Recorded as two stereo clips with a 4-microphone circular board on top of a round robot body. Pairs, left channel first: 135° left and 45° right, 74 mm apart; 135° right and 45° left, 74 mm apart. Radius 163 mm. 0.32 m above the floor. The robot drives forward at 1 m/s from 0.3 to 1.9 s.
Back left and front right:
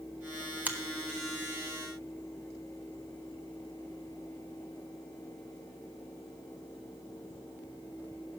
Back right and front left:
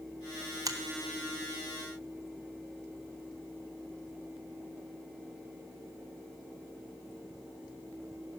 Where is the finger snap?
20° left, 1.3 m.